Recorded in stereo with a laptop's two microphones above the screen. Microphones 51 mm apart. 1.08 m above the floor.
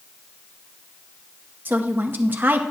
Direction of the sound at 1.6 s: 40° right (ahead or behind).